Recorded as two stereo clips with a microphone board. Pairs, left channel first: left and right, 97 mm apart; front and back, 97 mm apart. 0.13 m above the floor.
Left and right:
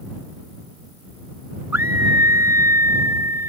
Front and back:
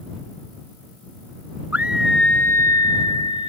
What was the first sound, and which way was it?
A scream, 130° right.